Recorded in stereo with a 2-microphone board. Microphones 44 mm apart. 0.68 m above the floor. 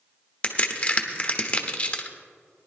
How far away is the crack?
About 1.0 m.